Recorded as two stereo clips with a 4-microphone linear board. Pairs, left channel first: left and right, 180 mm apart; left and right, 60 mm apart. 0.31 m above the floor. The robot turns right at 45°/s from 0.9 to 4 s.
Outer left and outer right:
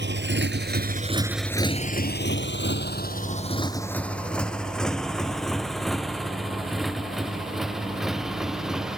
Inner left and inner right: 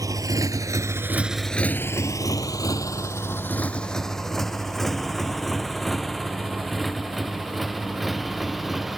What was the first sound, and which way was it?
A motorcycle, 85° right.